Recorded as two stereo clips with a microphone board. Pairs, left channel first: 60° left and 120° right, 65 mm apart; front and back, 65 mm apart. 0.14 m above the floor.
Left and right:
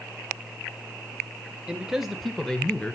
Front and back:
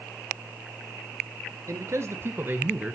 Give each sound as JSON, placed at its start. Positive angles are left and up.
{"t": 1.7, "sound": "a man speaking", "azimuth_deg": 165, "distance_m": 1.6}